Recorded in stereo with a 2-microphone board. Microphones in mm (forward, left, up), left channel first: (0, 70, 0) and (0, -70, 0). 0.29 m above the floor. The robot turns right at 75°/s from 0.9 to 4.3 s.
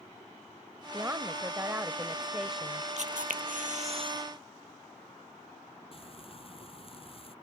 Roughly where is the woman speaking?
Centre.